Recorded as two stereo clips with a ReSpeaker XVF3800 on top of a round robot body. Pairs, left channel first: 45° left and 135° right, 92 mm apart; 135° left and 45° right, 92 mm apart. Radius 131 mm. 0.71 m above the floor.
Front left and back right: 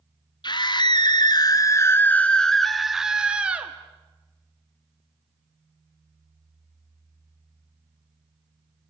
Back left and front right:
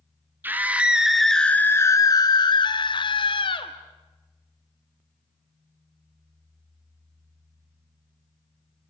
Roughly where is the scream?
Ahead.